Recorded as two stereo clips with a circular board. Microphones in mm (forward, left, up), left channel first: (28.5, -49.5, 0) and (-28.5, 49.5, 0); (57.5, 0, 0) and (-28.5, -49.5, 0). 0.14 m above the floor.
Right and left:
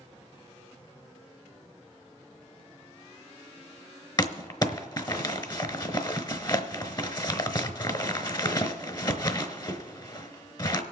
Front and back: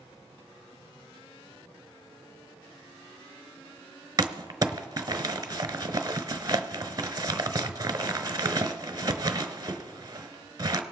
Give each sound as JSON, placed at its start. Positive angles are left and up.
{"t": 4.2, "sound": "crumpling", "azimuth_deg": -105, "distance_m": 0.9}